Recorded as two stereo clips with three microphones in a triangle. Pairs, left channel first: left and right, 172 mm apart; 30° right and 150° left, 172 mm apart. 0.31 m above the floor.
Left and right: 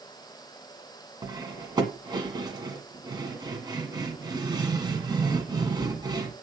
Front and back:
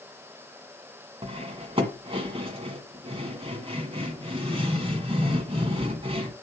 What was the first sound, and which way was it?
Cutlery clinking, 155° right.